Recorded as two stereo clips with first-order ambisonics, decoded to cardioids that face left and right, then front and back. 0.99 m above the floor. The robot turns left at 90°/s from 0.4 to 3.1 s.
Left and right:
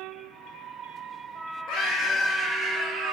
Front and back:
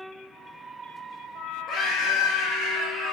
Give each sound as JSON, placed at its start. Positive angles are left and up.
{"t": 1.7, "sound": "a scream", "azimuth_deg": 40, "distance_m": 2.5}